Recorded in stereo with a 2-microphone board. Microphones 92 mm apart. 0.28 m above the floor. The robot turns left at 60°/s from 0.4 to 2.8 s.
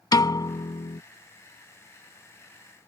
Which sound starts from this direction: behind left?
A piano, at 0.1 s.